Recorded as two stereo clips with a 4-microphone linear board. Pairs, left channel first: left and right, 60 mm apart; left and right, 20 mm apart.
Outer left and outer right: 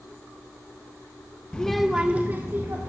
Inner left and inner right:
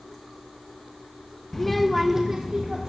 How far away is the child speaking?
About 0.5 m.